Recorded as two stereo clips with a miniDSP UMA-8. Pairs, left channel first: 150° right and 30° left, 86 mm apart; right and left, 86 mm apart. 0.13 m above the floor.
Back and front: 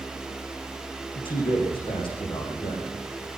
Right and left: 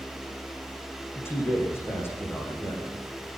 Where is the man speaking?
150° right, 7 m.